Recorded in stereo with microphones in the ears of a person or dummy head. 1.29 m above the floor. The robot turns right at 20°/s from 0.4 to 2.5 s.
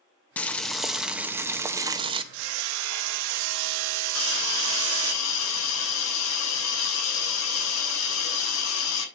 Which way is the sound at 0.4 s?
170° left.